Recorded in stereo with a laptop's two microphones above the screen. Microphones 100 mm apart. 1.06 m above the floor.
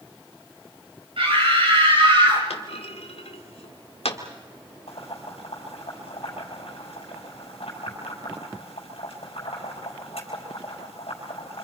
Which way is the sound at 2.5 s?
85° left.